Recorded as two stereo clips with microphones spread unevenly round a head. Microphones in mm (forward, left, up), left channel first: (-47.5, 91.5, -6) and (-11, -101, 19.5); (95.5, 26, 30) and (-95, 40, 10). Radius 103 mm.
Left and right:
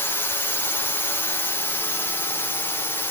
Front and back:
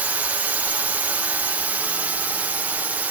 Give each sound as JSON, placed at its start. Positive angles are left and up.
{"t": 0.0, "sound": "a drone", "azimuth_deg": 130}